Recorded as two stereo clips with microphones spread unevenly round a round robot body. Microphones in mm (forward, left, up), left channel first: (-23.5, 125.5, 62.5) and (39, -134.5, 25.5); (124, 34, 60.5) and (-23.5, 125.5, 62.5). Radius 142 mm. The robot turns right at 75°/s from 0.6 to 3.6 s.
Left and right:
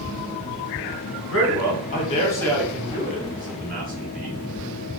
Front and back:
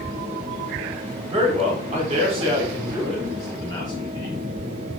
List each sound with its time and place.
1.3 s a man speaking: 110° left, 1.1 m; by 4.4 s 80° right, 1.1 m